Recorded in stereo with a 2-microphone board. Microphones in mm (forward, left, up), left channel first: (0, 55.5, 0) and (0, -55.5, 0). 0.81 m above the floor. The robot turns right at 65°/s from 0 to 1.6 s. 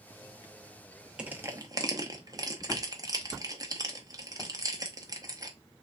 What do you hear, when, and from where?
1.2 s crushing: 10° right (ahead or behind), 0.7 m; by 5.5 s 35° right (ahead or behind), 0.7 m